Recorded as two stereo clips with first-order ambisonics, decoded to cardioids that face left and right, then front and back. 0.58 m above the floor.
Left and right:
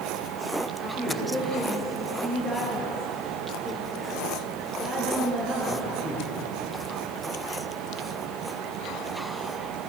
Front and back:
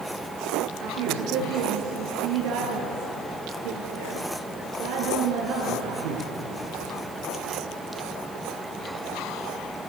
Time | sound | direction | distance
0.8 | a woman speaking | 170° right | 9 m